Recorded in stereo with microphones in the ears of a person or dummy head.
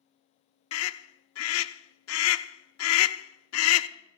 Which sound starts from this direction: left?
A scream, at 0.7 s.